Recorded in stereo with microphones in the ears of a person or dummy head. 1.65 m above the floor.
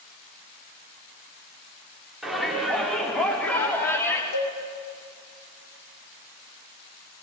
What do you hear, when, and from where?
2.2 s a shout: centre (ahead or behind), 5.5 m; by 4.2 s 20° left (ahead or behind), 4.5 m
4.3 s a cowbell: 75° left (ahead or behind), 4.5 m